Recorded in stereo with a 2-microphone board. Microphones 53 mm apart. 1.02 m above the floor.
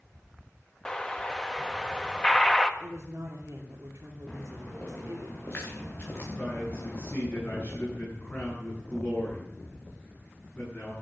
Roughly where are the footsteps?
Left.